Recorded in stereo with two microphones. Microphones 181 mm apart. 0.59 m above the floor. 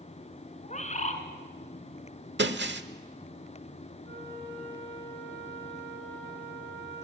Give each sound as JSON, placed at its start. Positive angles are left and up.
{"t": 0.6, "sound": "a bird", "side_deg": 40, "distance_m": 1.8}
{"t": 2.4, "sound": "breaking glass", "side_deg": -80, "distance_m": 1.0}
{"t": 4.0, "sound": "a flute", "side_deg": -80, "distance_m": 8.0}